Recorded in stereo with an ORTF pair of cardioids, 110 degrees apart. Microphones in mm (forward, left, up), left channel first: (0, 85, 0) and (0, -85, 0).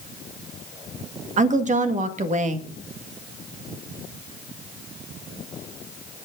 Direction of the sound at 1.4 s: 50° right.